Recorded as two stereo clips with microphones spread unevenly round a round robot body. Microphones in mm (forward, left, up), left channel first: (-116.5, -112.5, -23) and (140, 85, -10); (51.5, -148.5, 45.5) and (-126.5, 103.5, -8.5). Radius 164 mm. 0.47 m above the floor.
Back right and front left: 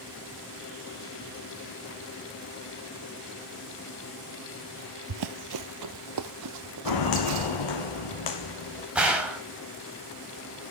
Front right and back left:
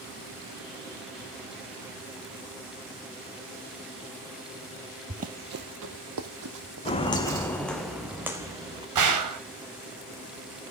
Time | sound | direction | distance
5.1 | running footsteps | 50° left | 0.7 m
6.8 | footsteps | 120° right | 1.6 m
8.9 | a gunshot | 125° left | 3 m